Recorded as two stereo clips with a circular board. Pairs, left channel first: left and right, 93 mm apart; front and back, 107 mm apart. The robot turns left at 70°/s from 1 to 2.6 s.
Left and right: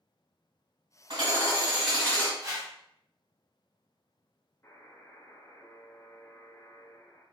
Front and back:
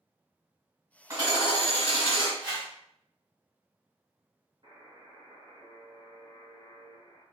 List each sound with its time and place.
1.1 s hammering: 120° right, 2.0 m; by 2.3 s 155° left, 2.0 m
2.4 s a whoosh: 135° right, 1.3 m; by 2.7 s 150° right, 1.3 m
4.6 s a buzzer: 145° left, 1.2 m